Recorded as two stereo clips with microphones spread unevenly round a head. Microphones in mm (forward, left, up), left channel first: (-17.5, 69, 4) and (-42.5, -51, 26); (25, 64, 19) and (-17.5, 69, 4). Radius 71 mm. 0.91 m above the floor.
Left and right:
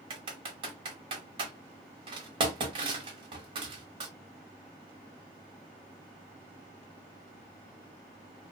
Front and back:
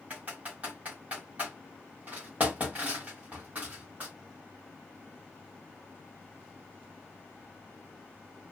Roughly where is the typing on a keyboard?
Right.